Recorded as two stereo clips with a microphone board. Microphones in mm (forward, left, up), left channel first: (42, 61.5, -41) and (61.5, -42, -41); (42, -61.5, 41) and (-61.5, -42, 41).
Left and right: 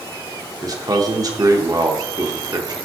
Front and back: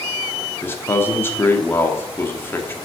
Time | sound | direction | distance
0.6 | a man speaking | 70° right | 0.8 m